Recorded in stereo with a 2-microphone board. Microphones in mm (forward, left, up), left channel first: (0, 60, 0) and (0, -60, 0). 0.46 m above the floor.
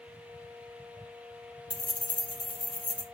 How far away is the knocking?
I don't hear knocking.